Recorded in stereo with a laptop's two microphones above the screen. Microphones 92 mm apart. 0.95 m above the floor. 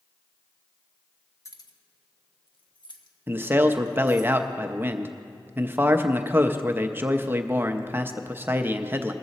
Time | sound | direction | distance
1.4 | keys jangling | 35° left (ahead or behind) | 0.8 m
3.3 | a man speaking | 25° right (ahead or behind) | 0.6 m